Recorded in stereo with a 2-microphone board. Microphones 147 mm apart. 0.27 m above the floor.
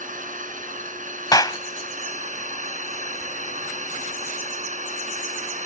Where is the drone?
65° right (ahead or behind); by 5.7 s 55° right (ahead or behind).